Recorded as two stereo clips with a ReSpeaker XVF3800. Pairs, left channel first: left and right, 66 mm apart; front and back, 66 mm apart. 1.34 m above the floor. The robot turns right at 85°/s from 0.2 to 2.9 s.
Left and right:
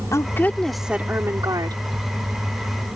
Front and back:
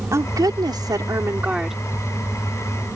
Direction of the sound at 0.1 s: 135° left.